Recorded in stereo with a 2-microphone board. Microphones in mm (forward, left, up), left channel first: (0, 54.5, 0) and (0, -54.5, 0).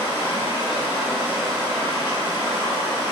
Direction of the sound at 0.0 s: 20° right (ahead or behind).